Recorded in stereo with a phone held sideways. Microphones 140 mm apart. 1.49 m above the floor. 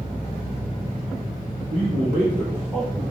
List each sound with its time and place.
1.7 s a man speaking: 80° right, 1.0 m; by 3.0 s 15° left (ahead or behind), 1.0 m